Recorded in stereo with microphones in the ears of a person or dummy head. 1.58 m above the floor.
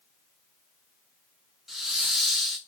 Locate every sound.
1.7 s a hiss: centre (ahead or behind), 0.6 m